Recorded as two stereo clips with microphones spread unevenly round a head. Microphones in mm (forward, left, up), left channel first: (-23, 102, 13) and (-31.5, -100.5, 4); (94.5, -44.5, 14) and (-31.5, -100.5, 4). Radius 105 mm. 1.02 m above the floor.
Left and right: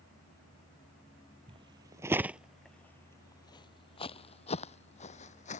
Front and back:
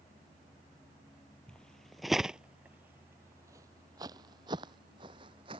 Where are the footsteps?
45° right; by 5.6 s 140° left.